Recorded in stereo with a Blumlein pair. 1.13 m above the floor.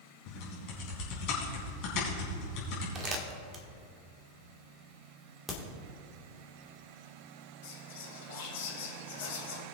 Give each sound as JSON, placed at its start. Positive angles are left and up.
{"t": 0.3, "sound": "typing on a keyboard", "azimuth_deg": 40, "distance_m": 3.5}
{"t": 3.0, "sound": "crumpling", "azimuth_deg": -25, "distance_m": 1.6}
{"t": 5.5, "sound": "a crack", "azimuth_deg": 0, "distance_m": 2.0}
{"t": 7.6, "sound": "whispering", "azimuth_deg": 55, "distance_m": 2.5}